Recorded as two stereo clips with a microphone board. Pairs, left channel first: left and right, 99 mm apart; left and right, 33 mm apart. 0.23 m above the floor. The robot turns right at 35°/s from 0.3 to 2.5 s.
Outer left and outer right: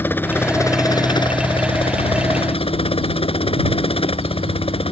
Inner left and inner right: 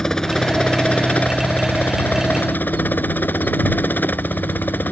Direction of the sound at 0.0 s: 20° left (ahead or behind).